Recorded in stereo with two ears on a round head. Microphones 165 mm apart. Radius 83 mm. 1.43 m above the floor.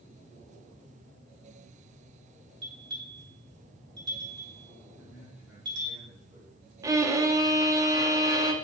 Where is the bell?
25° right (ahead or behind), 2.5 m.